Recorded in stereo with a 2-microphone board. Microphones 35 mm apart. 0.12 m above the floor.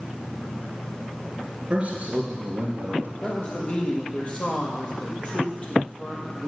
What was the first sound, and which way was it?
A man speaking, 35° right (ahead or behind).